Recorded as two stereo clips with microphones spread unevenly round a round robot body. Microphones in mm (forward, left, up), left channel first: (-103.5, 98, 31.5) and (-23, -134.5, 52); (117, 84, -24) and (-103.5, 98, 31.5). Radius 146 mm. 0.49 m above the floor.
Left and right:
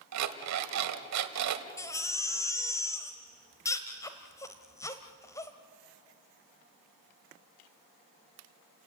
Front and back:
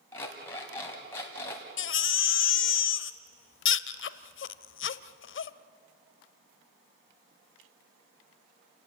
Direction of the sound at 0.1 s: 85° right.